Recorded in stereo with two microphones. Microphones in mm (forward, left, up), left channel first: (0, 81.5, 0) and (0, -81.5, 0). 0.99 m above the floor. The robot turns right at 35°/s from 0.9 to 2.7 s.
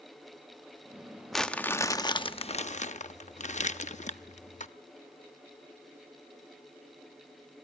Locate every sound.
1.3 s crumpling: straight ahead, 0.7 m; by 4.7 s 50° left, 0.7 m